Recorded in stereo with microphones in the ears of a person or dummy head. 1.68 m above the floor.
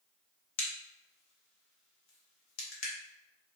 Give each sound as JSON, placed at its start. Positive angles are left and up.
{"t": 0.6, "sound": "a crack", "side_deg": 85, "distance_m": 1.3}